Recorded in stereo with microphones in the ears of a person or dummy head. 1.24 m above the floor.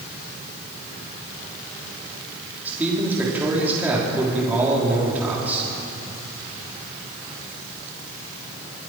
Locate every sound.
2.6 s a man speaking: 10° right (ahead or behind), 3 m